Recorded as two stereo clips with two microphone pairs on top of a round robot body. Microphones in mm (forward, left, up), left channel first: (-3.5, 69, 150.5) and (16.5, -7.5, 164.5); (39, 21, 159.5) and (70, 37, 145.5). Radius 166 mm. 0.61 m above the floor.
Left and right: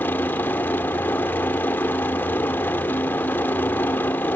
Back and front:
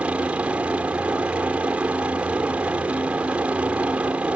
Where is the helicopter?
50° left.